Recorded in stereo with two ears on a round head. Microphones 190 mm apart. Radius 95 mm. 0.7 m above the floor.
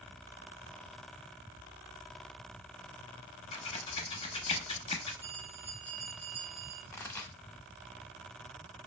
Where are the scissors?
25° left (ahead or behind), 0.6 m.